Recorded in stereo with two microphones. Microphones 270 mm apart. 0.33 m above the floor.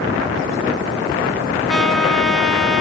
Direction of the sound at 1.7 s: Centre (ahead or behind).